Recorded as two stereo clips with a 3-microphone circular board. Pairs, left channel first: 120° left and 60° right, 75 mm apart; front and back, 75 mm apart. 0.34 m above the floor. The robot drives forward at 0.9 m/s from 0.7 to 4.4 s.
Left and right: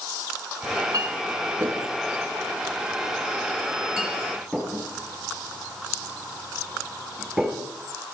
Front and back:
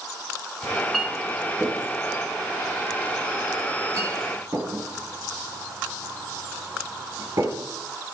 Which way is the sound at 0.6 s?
85° right.